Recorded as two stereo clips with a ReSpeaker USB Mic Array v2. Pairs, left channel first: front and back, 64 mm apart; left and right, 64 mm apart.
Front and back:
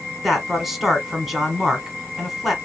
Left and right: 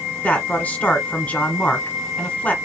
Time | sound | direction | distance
0.2 | a man speaking | 100° left | 1.2 m